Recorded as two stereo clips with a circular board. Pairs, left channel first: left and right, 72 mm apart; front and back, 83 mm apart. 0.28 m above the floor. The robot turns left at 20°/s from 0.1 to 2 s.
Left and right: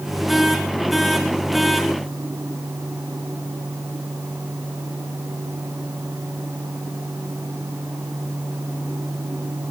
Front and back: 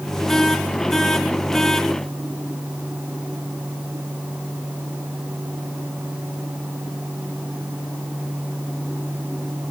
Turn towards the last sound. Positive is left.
No sound to turn to.